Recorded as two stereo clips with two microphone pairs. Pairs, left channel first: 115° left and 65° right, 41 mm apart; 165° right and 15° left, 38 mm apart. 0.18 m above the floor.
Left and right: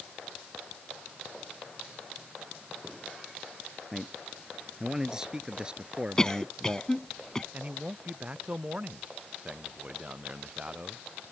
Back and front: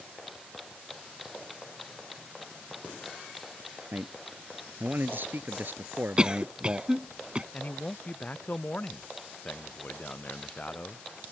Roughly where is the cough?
Ahead left.